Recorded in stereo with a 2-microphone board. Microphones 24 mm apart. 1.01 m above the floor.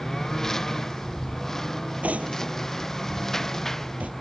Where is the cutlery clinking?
85° right.